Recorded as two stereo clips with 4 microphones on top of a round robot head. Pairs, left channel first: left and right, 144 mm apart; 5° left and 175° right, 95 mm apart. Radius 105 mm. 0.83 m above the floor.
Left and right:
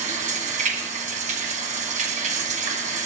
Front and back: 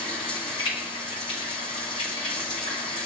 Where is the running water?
55° right, 1.8 m.